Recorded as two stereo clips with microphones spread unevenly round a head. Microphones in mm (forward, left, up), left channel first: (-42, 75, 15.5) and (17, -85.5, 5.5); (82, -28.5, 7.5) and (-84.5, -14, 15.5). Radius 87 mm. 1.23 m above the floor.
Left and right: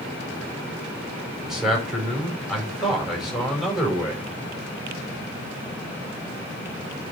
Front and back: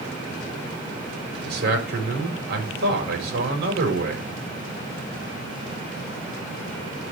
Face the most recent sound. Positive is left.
turn(degrees=-160)